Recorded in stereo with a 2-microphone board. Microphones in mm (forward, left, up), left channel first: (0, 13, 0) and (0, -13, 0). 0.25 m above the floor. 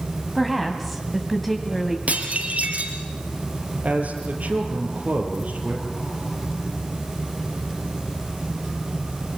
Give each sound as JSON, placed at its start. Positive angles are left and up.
{"t": 0.3, "sound": "a woman speaking", "side_deg": 5, "distance_m": 2.0}
{"t": 2.1, "sound": "dishes clattering", "side_deg": -65, "distance_m": 4.0}
{"t": 3.8, "sound": "a man speaking", "side_deg": -80, "distance_m": 5.5}